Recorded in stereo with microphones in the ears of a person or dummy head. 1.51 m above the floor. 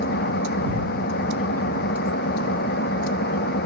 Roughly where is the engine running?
Left.